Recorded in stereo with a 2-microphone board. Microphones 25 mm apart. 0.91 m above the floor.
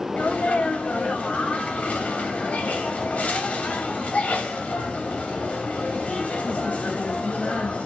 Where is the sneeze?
70° left (ahead or behind), 2.5 m.